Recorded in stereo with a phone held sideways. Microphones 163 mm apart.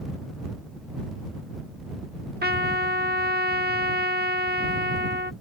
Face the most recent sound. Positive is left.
turn(degrees=-80)